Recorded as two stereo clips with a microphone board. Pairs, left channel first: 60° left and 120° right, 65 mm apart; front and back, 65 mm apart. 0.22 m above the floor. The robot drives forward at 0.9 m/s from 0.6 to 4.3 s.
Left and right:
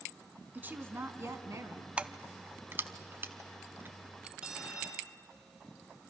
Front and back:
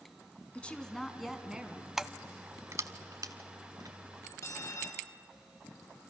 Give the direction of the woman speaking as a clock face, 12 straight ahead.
2 o'clock.